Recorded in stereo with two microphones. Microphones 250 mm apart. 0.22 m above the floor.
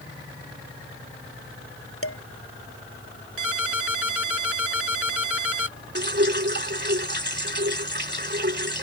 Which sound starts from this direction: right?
Dripping, at 6.0 s.